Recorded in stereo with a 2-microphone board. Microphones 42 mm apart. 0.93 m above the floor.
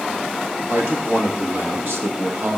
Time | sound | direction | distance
0.7 | a man speaking | 70° right (ahead or behind) | 1.7 m